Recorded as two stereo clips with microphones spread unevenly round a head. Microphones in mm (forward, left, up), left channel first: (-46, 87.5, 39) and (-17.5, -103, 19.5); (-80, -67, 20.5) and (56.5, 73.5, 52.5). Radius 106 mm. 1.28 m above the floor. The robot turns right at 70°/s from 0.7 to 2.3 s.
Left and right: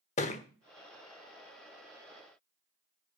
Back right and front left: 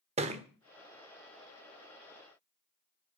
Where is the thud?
70° left, 1.1 m.